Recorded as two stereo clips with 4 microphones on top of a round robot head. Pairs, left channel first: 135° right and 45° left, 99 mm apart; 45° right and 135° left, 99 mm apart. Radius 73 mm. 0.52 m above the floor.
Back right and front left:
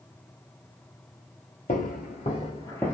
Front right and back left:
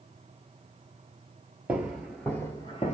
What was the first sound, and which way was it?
Footsteps, 145° right.